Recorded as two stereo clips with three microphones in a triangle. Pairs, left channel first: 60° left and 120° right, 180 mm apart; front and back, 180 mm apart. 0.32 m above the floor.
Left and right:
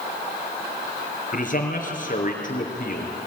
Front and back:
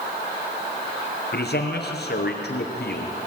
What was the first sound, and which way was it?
A man speaking, 20° left.